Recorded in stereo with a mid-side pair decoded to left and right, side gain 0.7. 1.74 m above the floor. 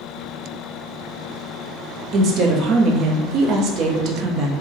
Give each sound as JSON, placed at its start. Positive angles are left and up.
{"t": 2.1, "sound": "a woman speaking", "azimuth_deg": -50, "distance_m": 0.8}